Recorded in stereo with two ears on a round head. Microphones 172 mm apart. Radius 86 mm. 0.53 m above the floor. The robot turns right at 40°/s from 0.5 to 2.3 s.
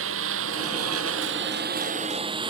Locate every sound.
0.0 s a lawn mower: 75° right (ahead or behind); by 2.5 s 25° right (ahead or behind)